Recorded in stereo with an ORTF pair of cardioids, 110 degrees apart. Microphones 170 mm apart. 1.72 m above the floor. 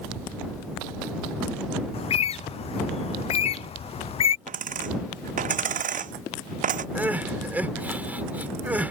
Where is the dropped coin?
50° right.